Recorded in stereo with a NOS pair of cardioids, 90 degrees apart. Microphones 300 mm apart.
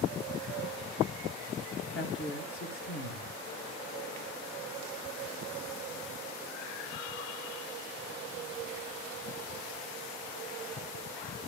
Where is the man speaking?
45° left, 1.4 m.